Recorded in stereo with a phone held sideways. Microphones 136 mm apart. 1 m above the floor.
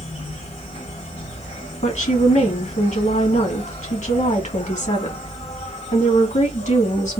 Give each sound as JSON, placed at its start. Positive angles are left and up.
{"t": 0.0, "sound": "an insect", "side_deg": 50, "distance_m": 1.7}
{"t": 1.8, "sound": "a woman speaking", "side_deg": 60, "distance_m": 2.0}